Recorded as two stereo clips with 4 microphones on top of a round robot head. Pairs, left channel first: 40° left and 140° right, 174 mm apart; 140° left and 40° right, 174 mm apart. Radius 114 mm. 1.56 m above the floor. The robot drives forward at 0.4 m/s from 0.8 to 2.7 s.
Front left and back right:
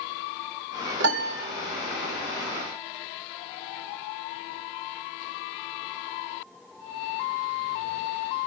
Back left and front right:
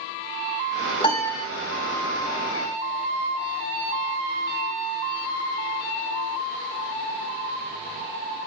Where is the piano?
160° right, 2 m.